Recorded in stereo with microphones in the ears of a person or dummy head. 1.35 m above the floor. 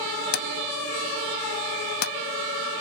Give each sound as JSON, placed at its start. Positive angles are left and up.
{"t": 0.3, "sound": "a drawer", "side_deg": 60}